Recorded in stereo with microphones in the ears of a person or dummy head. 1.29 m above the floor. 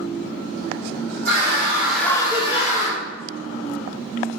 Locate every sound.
1.2 s a scream: 45° right (ahead or behind), 0.7 m; by 3.0 s 45° left (ahead or behind), 1.0 m